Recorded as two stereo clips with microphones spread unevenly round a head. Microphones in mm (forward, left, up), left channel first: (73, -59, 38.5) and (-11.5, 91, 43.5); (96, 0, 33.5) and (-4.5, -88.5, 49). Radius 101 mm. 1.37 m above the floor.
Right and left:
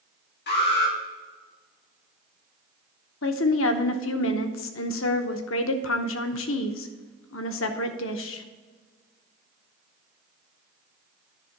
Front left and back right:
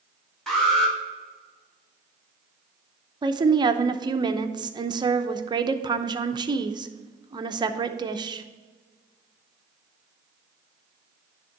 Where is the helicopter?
I don't hear a helicopter.